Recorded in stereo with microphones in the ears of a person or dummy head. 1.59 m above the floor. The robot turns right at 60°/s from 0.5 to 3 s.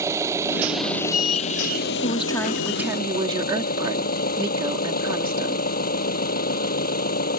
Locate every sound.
0.0 s an engine running: 15° right; by 7.4 s 135° left
2.0 s a woman speaking: 150° left; by 5.7 s 150° right